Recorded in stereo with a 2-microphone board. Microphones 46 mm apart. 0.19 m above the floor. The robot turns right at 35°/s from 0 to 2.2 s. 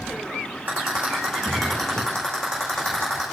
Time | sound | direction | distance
0.7 | a rattle | 35° right (ahead or behind) | 8.5 m